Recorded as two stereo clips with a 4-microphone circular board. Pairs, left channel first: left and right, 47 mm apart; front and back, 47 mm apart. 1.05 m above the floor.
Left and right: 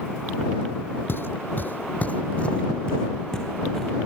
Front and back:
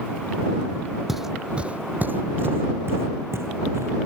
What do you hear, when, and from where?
1.1 s footsteps: 90° left; by 3.9 s 170° left